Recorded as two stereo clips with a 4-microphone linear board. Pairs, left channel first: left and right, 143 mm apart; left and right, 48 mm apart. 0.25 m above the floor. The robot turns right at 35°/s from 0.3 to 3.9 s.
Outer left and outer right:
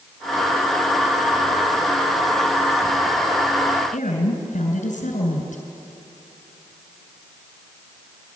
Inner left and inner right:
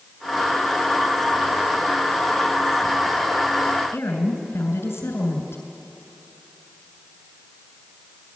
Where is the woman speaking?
65° left (ahead or behind), 3 m.